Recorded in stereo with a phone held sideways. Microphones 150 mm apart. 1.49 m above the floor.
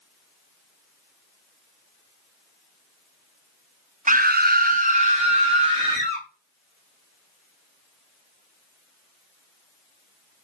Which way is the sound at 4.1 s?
60° right (ahead or behind).